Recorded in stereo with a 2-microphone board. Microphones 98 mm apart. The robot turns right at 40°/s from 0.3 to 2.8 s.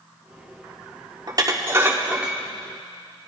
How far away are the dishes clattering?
About 1.0 m.